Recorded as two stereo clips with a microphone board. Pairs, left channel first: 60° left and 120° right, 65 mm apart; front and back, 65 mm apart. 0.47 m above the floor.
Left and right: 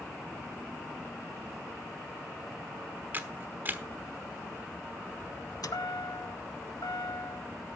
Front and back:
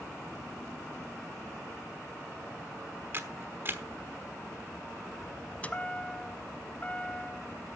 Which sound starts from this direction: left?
A chime, at 5.6 s.